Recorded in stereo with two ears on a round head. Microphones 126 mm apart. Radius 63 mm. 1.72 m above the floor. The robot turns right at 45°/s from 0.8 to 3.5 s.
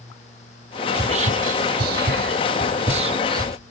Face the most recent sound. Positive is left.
turn(degrees=-25)  # may be behind; listen again after turning